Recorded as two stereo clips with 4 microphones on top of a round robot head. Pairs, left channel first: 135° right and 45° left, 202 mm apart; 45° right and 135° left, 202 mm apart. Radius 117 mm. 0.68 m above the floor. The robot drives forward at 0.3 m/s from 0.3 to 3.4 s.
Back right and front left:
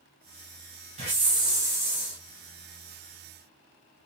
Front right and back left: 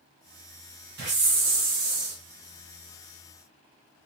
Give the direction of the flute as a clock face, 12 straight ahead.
I don't hear a flute.